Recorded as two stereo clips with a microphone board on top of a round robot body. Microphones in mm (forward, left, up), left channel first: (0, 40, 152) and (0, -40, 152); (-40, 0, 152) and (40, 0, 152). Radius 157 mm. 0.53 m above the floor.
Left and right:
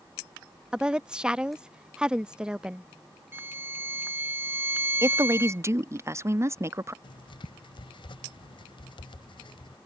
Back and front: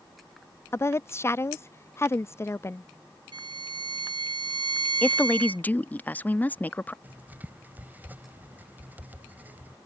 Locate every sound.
0.7 s a woman speaking: 160° right
3.3 s a violin: 25° right
5.0 s a woman speaking: 120° right
7.0 s writing: 70° left